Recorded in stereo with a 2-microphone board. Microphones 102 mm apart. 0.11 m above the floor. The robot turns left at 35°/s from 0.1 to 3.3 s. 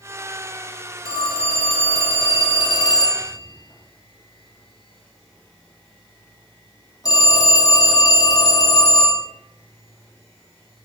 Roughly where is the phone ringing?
Behind left.